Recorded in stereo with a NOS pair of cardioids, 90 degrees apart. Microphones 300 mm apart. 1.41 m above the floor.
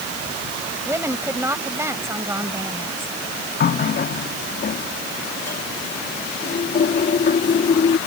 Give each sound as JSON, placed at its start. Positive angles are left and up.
{"t": 0.8, "sound": "a woman speaking", "azimuth_deg": -10}
{"t": 3.6, "sound": "a running tap", "azimuth_deg": 35}